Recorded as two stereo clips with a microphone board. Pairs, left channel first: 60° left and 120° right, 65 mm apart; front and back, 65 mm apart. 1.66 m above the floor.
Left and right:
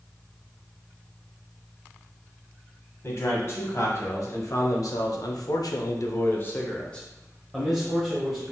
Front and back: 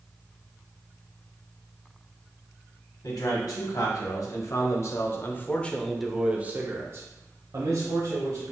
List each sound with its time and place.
3.0 s a man speaking: 15° left, 1.7 m; by 8.5 s 155° left, 1.5 m